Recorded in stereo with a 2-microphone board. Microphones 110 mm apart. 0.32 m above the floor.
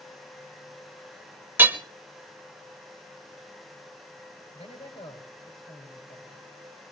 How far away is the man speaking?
About 6 m.